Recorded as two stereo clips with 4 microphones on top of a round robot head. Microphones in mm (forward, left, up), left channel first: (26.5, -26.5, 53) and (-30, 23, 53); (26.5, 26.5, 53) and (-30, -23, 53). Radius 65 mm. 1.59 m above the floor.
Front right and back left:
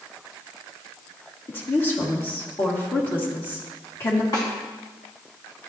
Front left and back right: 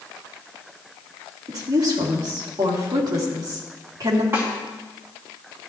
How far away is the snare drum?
About 2.5 m.